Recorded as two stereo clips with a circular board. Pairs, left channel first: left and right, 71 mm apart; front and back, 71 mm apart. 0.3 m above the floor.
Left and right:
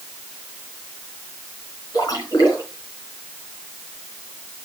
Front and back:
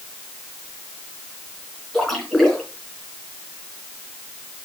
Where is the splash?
85° left, 4 m.